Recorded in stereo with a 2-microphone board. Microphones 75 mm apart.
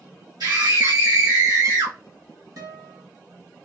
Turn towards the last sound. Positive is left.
turn(degrees=-55)  # may be behind; listen again after turning